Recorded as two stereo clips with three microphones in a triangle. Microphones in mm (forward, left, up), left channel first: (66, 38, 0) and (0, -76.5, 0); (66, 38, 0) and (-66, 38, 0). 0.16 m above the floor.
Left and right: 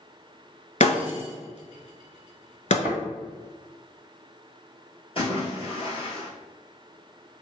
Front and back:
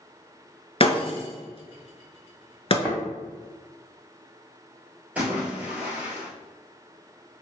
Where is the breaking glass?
40° left, 0.7 m.